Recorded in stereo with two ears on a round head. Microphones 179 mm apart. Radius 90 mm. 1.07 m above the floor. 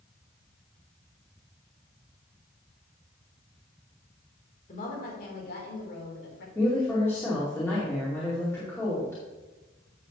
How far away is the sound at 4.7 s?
About 3.5 m.